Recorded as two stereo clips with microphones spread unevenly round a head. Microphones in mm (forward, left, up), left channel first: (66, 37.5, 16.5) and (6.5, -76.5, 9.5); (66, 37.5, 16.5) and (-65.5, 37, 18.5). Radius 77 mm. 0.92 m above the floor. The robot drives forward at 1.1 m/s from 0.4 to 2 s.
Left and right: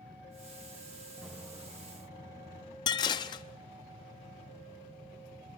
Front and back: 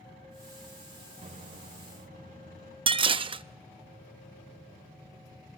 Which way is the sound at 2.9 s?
130° left.